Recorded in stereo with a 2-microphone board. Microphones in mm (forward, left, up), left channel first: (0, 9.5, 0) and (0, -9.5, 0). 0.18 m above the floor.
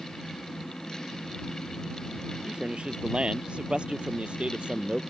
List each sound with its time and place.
2.5 s a man speaking: 70° right (ahead or behind); by 5.0 s 75° right (ahead or behind)